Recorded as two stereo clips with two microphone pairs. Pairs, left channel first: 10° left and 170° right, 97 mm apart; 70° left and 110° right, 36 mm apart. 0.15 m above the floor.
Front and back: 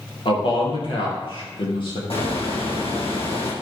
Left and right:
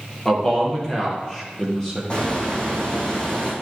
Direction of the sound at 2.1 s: 10° left.